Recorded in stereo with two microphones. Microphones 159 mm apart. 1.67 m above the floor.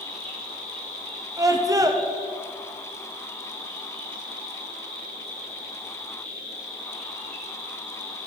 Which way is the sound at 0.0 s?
30° right (ahead or behind).